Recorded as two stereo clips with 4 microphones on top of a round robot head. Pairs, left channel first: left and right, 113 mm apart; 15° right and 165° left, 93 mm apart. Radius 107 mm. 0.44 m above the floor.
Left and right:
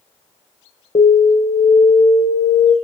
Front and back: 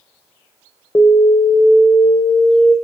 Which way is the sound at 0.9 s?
45° left.